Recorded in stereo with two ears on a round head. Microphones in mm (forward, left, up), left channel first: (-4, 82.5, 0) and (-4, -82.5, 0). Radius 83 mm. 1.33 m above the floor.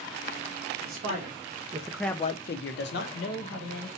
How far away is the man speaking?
About 1.6 m.